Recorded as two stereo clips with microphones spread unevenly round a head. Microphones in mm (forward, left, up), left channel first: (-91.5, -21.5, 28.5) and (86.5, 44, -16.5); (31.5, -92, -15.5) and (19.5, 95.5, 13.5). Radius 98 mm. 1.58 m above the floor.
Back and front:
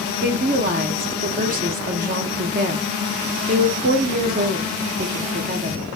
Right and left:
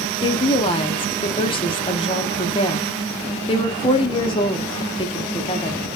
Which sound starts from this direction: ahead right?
A woman speaking, at 0.2 s.